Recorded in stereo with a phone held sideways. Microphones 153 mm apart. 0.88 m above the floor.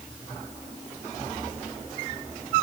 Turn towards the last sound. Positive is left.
No sound to turn to.